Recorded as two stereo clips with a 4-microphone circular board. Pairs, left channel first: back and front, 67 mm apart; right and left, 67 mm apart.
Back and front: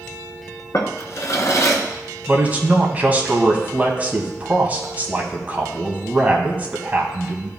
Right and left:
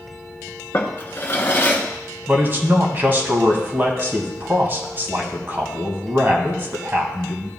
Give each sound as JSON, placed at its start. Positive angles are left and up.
{"t": 0.7, "sound": "a drawer", "azimuth_deg": -140, "distance_m": 1.1}
{"t": 2.3, "sound": "a man speaking", "azimuth_deg": 55, "distance_m": 1.5}